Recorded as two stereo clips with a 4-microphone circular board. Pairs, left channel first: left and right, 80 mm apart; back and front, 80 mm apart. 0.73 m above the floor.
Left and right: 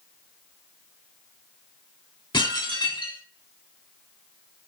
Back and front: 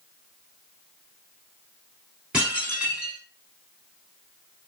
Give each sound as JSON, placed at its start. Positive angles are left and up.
{"t": 2.3, "sound": "dishes clattering", "azimuth_deg": 80, "distance_m": 4.5}